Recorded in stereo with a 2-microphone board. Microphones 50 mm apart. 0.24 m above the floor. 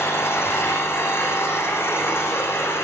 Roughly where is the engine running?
Left.